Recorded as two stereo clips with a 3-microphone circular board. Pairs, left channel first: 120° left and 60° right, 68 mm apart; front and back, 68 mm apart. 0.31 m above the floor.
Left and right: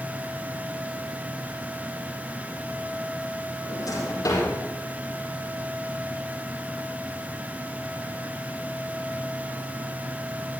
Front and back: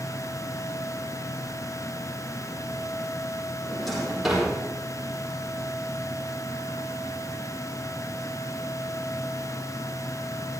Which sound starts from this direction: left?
A drawer, at 3.6 s.